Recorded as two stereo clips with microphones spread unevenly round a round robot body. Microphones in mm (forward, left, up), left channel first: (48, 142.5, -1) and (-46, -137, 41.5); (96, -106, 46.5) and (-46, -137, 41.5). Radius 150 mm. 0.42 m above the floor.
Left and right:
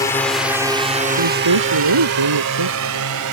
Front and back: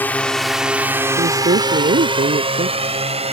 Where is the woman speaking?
135° right.